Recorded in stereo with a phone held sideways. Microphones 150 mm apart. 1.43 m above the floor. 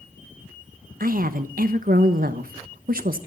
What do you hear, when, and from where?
1.0 s a woman speaking: 75° right (ahead or behind), 1.1 m